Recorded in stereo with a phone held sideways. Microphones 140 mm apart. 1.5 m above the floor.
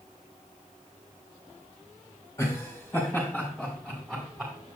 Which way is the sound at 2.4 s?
20° left (ahead or behind).